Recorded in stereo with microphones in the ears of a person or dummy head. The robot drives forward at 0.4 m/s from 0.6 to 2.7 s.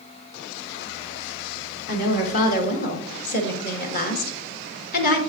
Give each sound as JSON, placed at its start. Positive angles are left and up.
{"t": 1.9, "sound": "a woman speaking", "side_deg": 45, "distance_m": 1.9}